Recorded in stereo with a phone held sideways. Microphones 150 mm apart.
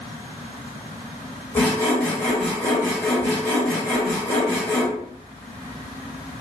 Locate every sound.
1.6 s sawing: 15° left (ahead or behind), 1.3 m